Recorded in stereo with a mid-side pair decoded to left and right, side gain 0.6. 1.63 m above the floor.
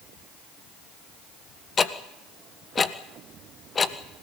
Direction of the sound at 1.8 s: 30° left.